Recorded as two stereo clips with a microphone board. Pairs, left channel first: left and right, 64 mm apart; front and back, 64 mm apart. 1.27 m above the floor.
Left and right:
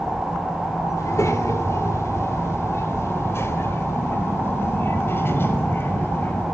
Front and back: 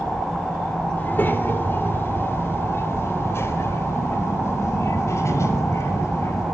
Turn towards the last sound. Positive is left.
turn(degrees=35)